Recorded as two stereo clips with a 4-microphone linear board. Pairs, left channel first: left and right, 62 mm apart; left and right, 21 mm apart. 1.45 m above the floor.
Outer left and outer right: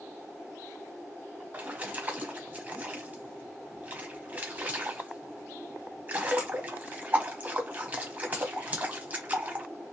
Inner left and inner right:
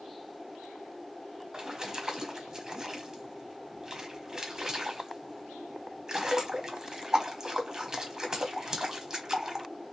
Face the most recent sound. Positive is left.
turn(degrees=-25)  # may be behind; listen again after turning